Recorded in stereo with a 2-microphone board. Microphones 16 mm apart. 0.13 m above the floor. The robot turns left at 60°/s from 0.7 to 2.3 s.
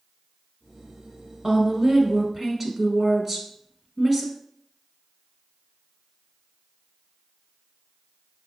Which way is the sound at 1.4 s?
25° right (ahead or behind).